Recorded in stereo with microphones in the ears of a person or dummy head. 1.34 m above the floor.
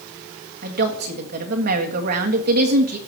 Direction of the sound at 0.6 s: 50° right (ahead or behind).